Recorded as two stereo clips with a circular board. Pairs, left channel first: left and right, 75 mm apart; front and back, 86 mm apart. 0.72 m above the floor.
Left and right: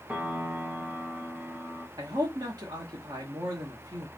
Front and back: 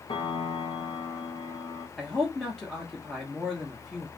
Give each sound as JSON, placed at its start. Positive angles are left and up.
{"t": 0.1, "sound": "a piano", "azimuth_deg": -20, "distance_m": 0.9}
{"t": 2.0, "sound": "a man speaking", "azimuth_deg": -85, "distance_m": 1.1}